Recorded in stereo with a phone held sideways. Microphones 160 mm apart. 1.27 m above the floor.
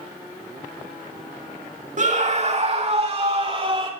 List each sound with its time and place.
2.0 s a scream: 50° right (ahead or behind), 2 m; by 3.9 s 35° right (ahead or behind), 3 m